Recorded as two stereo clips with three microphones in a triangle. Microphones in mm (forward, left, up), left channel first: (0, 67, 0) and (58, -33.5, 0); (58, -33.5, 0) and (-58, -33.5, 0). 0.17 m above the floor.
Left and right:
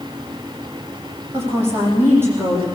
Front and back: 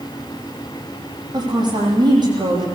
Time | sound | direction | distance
1.3 | a woman speaking | 130° right | 7 m